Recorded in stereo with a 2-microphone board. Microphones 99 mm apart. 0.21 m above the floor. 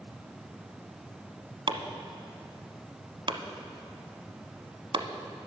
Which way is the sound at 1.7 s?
50° right (ahead or behind).